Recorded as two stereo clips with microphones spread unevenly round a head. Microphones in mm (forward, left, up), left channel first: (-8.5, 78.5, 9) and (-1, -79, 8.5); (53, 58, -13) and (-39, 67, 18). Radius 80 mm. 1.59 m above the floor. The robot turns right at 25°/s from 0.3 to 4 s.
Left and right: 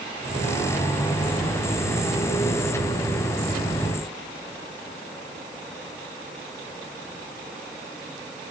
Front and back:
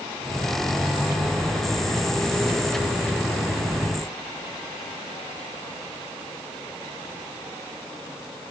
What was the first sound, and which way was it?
Only background noise.